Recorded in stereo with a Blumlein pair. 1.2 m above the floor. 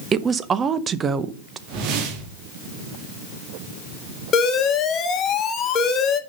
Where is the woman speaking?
20° right, 0.8 m.